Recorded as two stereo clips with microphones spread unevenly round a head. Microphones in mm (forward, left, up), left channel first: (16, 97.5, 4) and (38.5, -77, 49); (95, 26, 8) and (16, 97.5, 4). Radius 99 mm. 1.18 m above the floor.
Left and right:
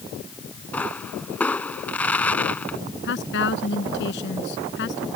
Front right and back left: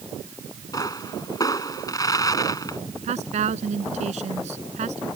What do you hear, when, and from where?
0.7 s a pop: 15° left
3.0 s a woman speaking: 130° left